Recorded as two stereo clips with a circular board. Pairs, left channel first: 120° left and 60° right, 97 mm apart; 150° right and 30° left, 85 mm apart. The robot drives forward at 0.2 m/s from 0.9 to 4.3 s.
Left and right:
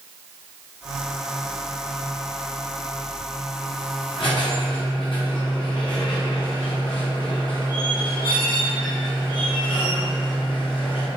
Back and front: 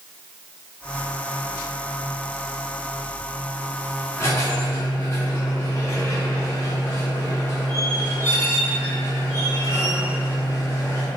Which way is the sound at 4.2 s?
155° left.